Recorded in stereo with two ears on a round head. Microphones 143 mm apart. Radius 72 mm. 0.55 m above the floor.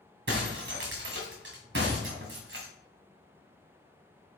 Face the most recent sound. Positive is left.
turn(degrees=-45)  # may be behind; listen again after turning